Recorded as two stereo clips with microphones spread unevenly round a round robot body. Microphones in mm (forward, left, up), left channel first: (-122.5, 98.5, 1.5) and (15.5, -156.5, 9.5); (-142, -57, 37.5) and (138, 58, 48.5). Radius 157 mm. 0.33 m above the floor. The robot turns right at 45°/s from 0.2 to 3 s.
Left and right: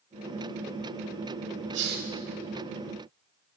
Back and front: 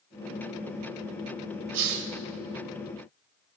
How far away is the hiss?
About 1.1 m.